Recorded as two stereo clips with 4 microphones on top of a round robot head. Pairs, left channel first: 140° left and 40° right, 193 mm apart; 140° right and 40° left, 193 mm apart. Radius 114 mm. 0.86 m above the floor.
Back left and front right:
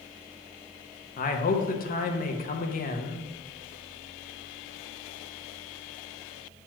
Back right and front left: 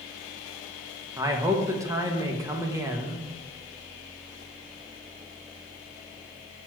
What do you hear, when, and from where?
1.2 s a man speaking: 110° left, 0.9 m